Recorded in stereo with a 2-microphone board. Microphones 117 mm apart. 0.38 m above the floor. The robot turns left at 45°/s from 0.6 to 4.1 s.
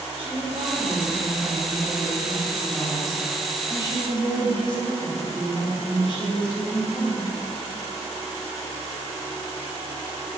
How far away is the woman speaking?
About 2.5 m.